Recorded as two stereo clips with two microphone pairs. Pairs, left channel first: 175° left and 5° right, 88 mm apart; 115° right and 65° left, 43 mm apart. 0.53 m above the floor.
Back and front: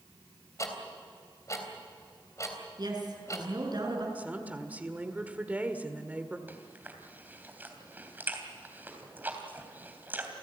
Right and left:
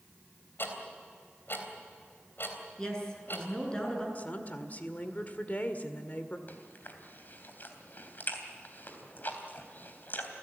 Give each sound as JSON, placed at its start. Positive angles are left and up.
{"t": 0.6, "sound": "ticking", "azimuth_deg": -135, "distance_m": 3.5}
{"t": 2.8, "sound": "a woman speaking", "azimuth_deg": -35, "distance_m": 6.5}
{"t": 4.2, "sound": "a woman speaking", "azimuth_deg": -70, "distance_m": 1.7}
{"t": 6.5, "sound": "chewing", "azimuth_deg": -70, "distance_m": 3.0}